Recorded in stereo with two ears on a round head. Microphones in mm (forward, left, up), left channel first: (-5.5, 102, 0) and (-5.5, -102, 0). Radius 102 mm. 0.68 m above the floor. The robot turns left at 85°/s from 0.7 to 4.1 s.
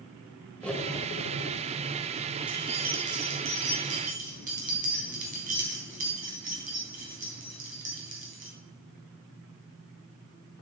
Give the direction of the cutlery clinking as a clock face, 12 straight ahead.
6 o'clock.